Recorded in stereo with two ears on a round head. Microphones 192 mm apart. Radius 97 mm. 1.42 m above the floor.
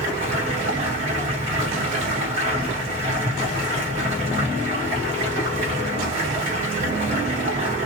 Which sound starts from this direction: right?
Running water, at 0.0 s.